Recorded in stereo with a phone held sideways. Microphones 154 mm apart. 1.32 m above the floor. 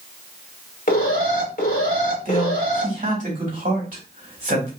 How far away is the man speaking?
About 2.5 m.